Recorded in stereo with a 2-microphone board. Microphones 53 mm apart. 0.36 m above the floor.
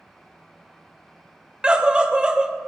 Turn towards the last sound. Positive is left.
turn(degrees=-20)  # may be behind; listen again after turning